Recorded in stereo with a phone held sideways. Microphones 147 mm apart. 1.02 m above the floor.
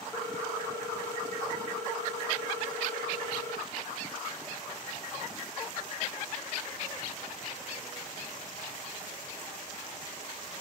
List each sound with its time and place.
0.1 s a ringtone: 15° left (ahead or behind), 1.3 m